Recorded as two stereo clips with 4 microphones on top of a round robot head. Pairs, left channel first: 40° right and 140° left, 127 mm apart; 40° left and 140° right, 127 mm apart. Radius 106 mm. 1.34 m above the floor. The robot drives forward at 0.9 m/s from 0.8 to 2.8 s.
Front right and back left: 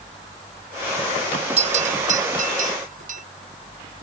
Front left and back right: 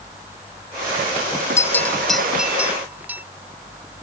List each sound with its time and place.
1.6 s a bell: 105° left; by 3.2 s 140° left